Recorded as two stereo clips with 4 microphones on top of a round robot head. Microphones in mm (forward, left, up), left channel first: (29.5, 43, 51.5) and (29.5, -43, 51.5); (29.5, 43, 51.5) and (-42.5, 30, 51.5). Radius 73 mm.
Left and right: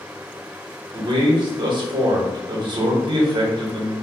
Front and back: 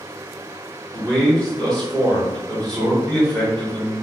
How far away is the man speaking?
About 2 m.